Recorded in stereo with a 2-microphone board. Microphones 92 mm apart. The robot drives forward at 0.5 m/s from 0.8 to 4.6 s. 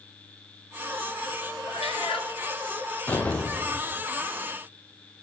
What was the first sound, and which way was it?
A cat meowing, 90° left.